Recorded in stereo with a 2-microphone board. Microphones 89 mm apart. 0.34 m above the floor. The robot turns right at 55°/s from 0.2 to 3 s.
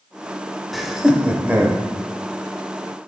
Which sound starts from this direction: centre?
Laughter, at 0.7 s.